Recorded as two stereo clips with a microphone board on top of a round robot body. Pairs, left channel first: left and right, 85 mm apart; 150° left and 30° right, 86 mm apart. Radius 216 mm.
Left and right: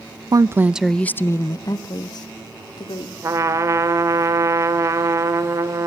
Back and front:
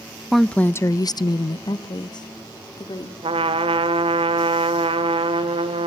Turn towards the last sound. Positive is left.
turn(degrees=-35)